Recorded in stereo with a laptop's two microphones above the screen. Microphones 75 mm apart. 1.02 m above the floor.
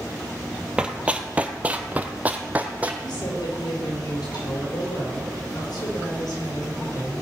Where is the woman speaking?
70° left (ahead or behind), 4 m.